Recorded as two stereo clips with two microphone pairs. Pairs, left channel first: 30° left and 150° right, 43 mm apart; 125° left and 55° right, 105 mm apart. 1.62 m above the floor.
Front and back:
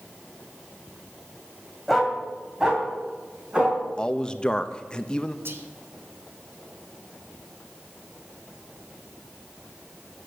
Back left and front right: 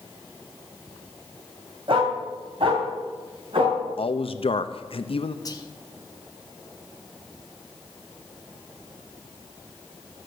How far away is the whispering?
About 1.4 m.